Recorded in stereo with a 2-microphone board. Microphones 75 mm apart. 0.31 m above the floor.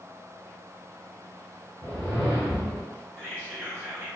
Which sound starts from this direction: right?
Whispering, at 3.2 s.